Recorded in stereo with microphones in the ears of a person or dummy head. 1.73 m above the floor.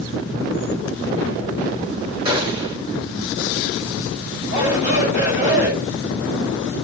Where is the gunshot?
30° right (ahead or behind), 2.5 m.